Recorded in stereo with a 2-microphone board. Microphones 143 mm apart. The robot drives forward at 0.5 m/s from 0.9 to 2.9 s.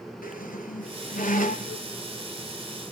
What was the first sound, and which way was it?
A squeak, 80° left.